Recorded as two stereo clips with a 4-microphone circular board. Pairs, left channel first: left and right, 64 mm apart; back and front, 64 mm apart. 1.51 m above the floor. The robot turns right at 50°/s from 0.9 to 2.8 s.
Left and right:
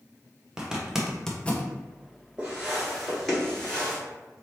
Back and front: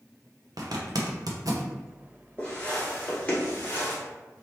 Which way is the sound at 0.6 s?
10° right.